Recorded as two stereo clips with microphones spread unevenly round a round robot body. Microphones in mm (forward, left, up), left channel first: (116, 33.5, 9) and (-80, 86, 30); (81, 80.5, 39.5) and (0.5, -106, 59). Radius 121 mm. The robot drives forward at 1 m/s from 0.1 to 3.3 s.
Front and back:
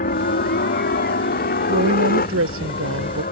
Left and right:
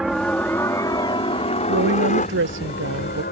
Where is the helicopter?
25° right; by 3.3 s 30° left.